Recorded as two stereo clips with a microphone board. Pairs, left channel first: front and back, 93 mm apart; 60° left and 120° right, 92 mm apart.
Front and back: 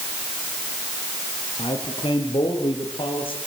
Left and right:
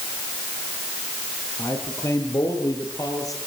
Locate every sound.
1.6 s a man speaking: 5° left, 4 m; by 3.4 s 10° left, 6 m